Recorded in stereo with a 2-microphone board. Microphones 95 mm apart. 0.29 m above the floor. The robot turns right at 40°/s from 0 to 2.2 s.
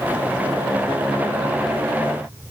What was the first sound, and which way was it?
Only background noise.